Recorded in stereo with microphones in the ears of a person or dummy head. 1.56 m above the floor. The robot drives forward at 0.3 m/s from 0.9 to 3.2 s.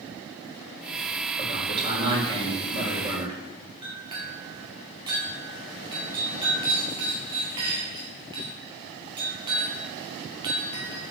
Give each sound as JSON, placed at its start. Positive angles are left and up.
{"t": 1.4, "sound": "a man speaking", "side_deg": -30, "distance_m": 4.0}
{"t": 3.8, "sound": "a clink", "side_deg": -25, "distance_m": 2.0}